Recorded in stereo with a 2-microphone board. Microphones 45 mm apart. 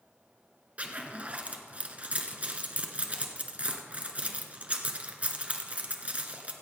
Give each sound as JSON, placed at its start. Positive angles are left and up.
{"t": 0.8, "sound": "a zipper", "side_deg": -35, "distance_m": 1.2}